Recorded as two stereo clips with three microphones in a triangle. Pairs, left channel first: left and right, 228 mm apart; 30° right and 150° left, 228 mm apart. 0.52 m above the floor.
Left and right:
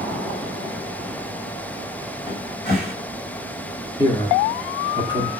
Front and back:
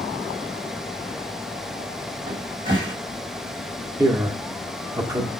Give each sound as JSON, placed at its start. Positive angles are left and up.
{"t": 2.3, "sound": "a cupboard door", "azimuth_deg": 125, "distance_m": 2.5}
{"t": 4.0, "sound": "a man speaking", "azimuth_deg": 110, "distance_m": 1.1}